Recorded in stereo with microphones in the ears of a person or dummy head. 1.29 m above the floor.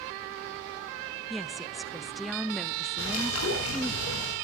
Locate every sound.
1.3 s a woman speaking: centre (ahead or behind), 0.5 m
3.0 s a bird: 80° left, 7.5 m